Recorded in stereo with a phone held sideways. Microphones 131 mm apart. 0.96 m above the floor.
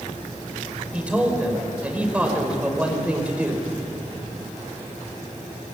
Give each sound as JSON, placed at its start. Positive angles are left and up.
{"t": 0.9, "sound": "a man speaking", "side_deg": -10, "distance_m": 5.0}